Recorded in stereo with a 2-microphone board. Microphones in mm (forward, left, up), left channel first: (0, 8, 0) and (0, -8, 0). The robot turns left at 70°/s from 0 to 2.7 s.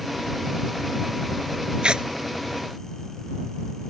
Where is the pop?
No pop in this recording.